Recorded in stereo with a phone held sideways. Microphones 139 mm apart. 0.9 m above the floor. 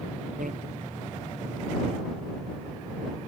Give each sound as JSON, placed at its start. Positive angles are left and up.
{"t": 0.4, "sound": "a bicycle bell", "side_deg": -75}